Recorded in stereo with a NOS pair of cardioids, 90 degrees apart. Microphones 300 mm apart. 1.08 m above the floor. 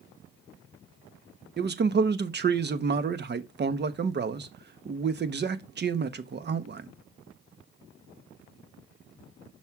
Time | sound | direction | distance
1.6 | a man speaking | 35° right | 1.1 m